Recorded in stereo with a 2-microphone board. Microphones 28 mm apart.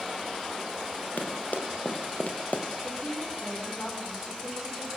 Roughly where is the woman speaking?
Left.